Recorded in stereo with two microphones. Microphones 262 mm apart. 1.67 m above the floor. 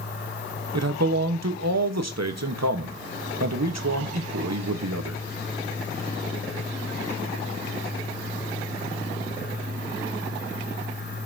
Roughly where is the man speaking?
Right.